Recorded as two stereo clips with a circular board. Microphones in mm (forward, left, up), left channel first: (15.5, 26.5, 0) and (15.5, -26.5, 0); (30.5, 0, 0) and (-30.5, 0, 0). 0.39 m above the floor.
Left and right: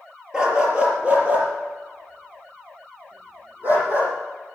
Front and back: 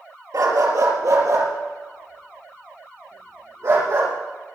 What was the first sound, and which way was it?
A dog barking, 165° right.